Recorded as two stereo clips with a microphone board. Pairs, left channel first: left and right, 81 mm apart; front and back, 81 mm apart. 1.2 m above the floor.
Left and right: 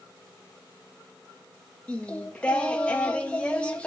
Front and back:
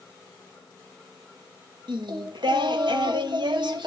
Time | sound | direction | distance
1.9 | singing | 165° left | 1.5 m